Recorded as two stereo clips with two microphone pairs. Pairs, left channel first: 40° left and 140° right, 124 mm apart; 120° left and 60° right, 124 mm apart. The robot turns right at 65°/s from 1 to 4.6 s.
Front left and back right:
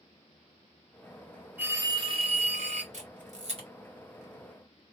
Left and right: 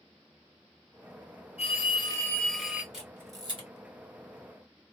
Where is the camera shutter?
150° right, 1.3 m; by 3.7 s 100° right, 1.3 m.